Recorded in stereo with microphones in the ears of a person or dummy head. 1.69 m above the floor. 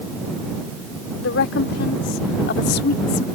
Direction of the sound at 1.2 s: 75° left (ahead or behind).